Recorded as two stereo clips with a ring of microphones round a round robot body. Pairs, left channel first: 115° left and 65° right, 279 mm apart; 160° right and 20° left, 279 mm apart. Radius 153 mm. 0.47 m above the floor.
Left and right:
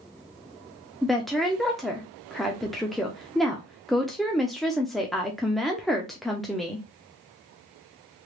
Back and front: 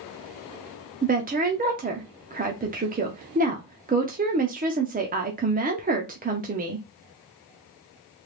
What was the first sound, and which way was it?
A woman speaking, 25° left.